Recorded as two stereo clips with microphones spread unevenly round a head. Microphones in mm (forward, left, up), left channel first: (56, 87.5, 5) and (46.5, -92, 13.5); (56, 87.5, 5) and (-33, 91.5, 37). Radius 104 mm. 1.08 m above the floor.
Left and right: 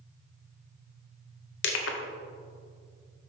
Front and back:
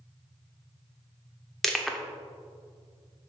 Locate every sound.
1.6 s crushing: 95° left, 1.0 m